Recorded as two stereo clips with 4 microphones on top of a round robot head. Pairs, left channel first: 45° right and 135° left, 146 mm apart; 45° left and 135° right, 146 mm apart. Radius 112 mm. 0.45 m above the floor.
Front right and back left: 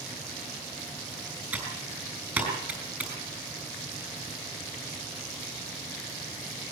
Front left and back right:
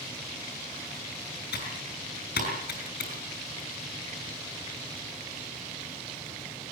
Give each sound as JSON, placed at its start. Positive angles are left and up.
{"t": 1.5, "sound": "typing on a keyboard", "azimuth_deg": 55, "distance_m": 7.0}